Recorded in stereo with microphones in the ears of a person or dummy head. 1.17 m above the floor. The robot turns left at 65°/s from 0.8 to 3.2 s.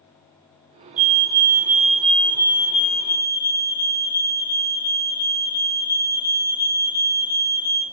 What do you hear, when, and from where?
1.0 s a fire alarm: 115° right, 1.8 m; by 7.8 s 95° left, 1.8 m